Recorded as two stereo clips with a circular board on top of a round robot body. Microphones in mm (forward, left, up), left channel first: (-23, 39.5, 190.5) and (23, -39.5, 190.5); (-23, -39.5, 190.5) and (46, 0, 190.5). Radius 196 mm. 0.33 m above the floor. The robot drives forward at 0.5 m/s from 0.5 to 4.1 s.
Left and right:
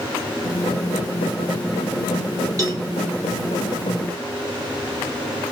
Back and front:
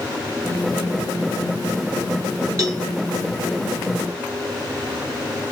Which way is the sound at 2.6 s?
15° right.